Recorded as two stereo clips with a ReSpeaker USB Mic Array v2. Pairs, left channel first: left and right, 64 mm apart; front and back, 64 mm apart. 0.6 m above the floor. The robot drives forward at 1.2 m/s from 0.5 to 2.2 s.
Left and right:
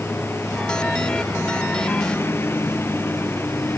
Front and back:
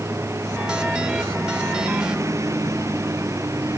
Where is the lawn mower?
140° left.